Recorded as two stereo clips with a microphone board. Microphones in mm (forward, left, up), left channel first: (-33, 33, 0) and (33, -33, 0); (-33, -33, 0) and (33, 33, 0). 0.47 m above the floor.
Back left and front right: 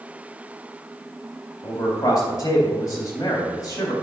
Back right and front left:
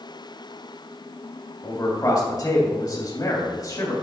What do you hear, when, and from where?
1.6 s a man speaking: straight behind, 3 m